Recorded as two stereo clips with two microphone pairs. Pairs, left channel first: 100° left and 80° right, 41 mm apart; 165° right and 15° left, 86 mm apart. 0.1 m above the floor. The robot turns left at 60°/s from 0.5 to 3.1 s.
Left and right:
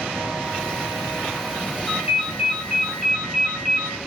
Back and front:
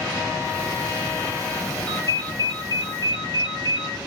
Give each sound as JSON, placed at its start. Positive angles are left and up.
{"t": 1.9, "sound": "a ringtone", "azimuth_deg": -115, "distance_m": 1.2}